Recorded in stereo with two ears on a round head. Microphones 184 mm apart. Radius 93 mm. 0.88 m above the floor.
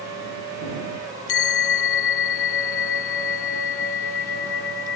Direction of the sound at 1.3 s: 70° left (ahead or behind).